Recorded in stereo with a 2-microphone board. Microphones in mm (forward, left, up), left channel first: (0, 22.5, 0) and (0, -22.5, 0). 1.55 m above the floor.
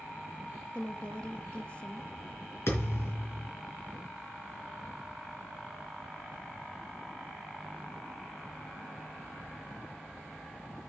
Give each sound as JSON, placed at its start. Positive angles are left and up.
{"t": 0.7, "sound": "a woman speaking", "side_deg": 25, "distance_m": 0.7}
{"t": 2.7, "sound": "a thud", "side_deg": 70, "distance_m": 4.0}